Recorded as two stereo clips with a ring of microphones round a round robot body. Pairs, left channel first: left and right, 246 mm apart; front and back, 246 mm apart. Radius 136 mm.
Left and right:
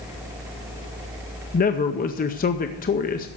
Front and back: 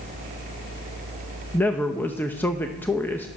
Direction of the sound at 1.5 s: 75° left.